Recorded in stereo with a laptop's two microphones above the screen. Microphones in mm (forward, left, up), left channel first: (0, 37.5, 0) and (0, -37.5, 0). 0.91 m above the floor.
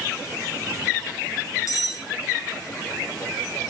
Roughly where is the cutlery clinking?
Left.